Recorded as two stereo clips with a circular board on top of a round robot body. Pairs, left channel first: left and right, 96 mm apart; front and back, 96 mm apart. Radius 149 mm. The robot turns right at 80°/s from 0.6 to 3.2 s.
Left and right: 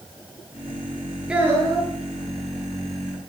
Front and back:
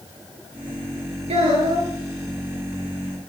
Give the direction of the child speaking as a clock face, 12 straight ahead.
6 o'clock.